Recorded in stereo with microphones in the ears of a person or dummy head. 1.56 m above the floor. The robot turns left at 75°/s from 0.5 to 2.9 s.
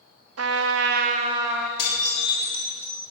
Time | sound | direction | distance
0.4 | a trumpet | 95° right | 0.6 m
1.8 | dishes clattering | 65° left | 2.5 m